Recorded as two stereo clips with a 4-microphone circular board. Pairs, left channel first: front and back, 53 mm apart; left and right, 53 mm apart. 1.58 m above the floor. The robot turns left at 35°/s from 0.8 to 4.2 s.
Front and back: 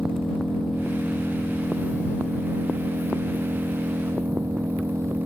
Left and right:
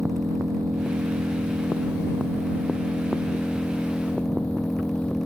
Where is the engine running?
85° right; by 5.3 s 155° left.